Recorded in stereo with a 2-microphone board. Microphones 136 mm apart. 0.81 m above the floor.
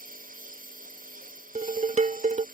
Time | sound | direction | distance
0.0 | a lawn mower | 85° right | ?
1.6 | dishes clattering | 55° right (ahead or behind) | ?